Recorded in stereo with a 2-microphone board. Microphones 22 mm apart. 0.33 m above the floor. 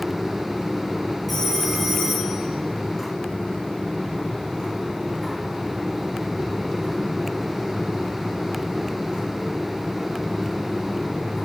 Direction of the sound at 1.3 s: Centre (ahead or behind).